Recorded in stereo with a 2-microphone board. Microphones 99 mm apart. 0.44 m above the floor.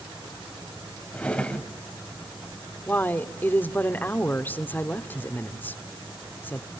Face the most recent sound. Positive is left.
turn(degrees=20)  # may be behind; listen again after turning